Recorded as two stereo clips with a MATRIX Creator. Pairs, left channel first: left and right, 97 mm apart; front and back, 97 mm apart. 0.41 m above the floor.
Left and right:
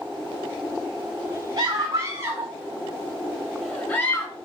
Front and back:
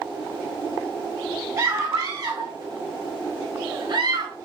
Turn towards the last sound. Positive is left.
turn(degrees=150)